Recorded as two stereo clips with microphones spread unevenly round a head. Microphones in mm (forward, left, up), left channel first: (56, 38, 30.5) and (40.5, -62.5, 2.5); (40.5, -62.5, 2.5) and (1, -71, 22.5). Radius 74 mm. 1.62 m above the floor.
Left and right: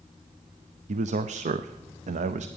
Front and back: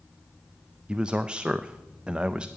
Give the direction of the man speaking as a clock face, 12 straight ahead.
3 o'clock.